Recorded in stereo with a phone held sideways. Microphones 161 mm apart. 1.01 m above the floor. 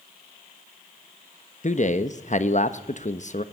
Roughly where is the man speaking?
Left.